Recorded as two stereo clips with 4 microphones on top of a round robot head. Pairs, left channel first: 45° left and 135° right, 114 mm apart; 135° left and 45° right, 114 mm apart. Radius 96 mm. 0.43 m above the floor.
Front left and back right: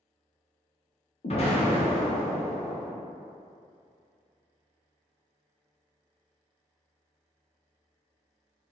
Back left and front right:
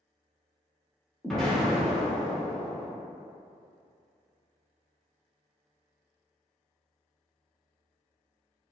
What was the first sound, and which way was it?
An explosion, 45° left.